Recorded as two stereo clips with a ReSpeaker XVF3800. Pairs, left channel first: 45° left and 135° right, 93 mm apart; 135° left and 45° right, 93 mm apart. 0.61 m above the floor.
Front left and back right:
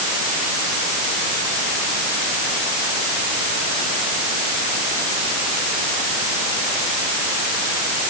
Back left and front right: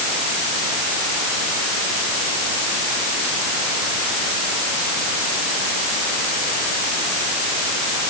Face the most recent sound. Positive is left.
No sound to turn to.